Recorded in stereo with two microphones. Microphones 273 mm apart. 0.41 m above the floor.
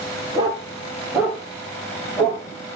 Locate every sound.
0.3 s a dog barking: 15° right (ahead or behind), 4.5 m; by 2.4 s 5° left (ahead or behind), 4.5 m